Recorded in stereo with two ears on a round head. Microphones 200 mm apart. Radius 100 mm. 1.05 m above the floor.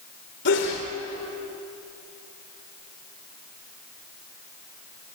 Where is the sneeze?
55° left (ahead or behind), 3 m.